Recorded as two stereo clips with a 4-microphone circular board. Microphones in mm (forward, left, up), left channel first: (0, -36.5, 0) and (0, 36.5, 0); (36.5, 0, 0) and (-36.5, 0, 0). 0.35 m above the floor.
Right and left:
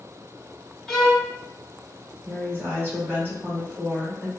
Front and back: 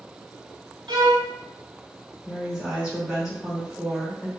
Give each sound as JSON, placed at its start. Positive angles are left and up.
{"t": 0.9, "sound": "a violin", "azimuth_deg": -175, "distance_m": 0.5}
{"t": 2.2, "sound": "a woman speaking", "azimuth_deg": 105, "distance_m": 1.0}